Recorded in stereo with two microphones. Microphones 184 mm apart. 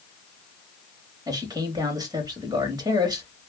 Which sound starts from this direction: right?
A man speaking, at 1.3 s.